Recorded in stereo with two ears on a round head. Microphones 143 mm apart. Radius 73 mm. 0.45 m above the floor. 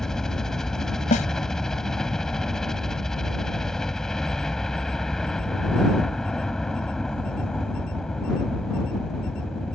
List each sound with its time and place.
0.0 s a helicopter: 5° left (ahead or behind)
1.1 s a snare drum: 50° left (ahead or behind)